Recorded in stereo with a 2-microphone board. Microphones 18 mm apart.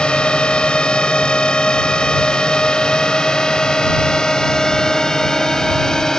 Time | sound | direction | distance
0.0 | a drone | 65° left (ahead or behind) | ?